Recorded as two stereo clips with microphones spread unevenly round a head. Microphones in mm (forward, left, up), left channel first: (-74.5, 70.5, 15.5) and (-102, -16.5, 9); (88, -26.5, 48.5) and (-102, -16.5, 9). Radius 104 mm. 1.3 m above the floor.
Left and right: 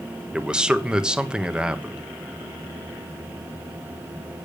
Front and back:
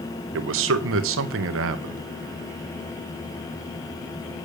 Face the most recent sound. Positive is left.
turn(degrees=170)